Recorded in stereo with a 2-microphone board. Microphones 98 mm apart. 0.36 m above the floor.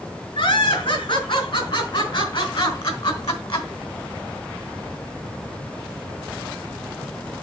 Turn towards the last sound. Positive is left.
turn(degrees=60)  # may be behind; listen again after turning